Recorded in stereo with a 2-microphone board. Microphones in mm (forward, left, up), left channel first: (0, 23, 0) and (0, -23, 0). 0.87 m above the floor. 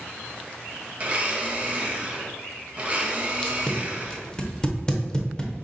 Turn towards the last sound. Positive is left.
turn(degrees=15)  # may be behind; listen again after turning